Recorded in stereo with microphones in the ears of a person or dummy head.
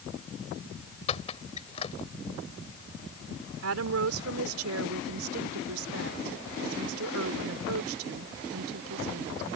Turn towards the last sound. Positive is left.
turn(degrees=-85)